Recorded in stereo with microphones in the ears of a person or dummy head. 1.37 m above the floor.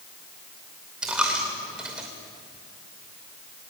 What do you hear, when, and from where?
1.0 s a dropped coin: 5° right (ahead or behind), 2.5 m